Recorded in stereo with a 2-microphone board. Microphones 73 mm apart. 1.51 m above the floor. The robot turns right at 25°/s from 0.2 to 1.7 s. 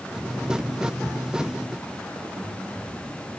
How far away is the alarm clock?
I don't hear an alarm clock.